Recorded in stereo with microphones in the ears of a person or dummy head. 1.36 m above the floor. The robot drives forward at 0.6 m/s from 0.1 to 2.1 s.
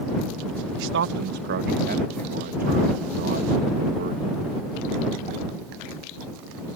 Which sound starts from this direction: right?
A man speaking, at 0.8 s.